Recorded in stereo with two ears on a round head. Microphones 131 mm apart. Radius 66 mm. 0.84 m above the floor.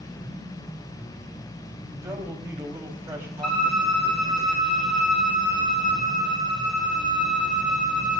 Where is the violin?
5° left (ahead or behind), 10 m.